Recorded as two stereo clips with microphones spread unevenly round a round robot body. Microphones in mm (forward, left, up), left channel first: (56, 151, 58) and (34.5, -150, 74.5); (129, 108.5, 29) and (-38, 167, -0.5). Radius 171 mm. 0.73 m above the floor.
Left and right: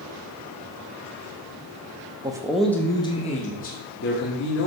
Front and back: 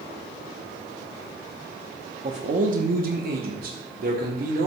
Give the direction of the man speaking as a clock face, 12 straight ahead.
6 o'clock.